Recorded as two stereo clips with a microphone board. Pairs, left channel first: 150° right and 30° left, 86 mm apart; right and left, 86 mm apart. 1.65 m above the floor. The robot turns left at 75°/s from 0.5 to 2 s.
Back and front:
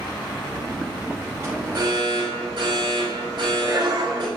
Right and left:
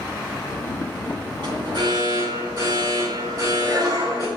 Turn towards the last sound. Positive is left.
turn(degrees=50)